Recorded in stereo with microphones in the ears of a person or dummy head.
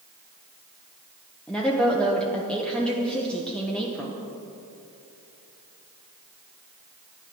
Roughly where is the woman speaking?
Centre.